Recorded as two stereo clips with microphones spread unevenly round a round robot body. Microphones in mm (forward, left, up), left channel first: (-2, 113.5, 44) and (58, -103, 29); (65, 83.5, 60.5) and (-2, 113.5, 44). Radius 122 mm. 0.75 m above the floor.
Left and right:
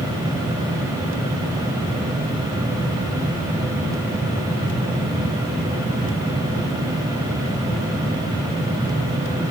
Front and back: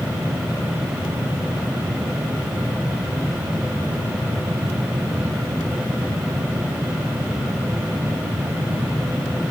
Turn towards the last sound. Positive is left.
No sound to turn to.